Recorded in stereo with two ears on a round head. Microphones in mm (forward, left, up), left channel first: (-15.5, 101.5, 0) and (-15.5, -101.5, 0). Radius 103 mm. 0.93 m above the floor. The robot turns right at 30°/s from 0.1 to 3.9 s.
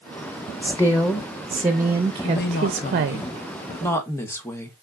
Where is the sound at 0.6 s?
160° left, 0.5 m; by 3.2 s 120° right, 0.5 m.